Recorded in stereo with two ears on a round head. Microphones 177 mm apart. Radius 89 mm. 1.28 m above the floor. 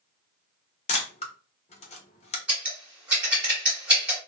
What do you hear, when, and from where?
0.9 s a camera shutter: 35° left (ahead or behind), 0.6 m
2.5 s scissors: 5° right (ahead or behind), 1.1 m